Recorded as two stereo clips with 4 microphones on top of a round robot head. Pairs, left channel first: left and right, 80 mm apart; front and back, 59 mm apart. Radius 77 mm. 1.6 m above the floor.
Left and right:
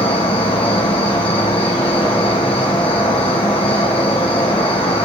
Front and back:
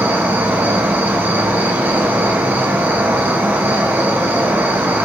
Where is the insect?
125° left, 1.5 m.